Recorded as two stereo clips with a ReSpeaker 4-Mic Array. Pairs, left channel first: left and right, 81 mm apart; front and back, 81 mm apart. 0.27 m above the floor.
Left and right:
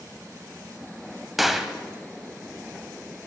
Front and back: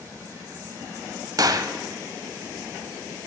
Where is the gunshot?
Straight behind, 0.5 m.